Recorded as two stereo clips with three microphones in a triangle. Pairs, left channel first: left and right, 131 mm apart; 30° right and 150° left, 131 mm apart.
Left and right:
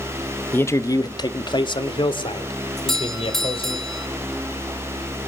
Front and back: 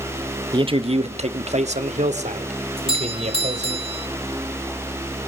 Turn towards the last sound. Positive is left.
turn(degrees=175)